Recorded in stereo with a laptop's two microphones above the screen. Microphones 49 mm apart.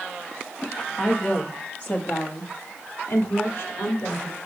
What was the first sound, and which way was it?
A woman speaking, 20° left (ahead or behind).